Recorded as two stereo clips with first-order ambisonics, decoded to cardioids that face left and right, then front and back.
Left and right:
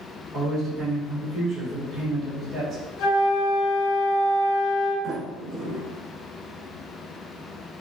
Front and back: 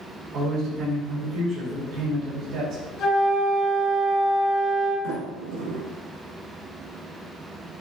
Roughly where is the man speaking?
Behind.